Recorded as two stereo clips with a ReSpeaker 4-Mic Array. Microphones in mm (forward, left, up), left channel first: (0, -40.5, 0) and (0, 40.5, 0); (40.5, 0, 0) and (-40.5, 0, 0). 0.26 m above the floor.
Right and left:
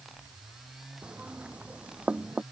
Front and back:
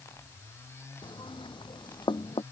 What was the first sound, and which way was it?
Knocking, 10° left.